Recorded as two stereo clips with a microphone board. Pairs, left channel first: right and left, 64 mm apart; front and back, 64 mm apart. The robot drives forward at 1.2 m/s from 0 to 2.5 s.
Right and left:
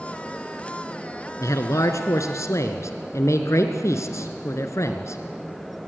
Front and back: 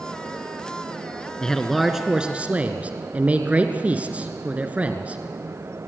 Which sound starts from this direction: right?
A man speaking, at 1.4 s.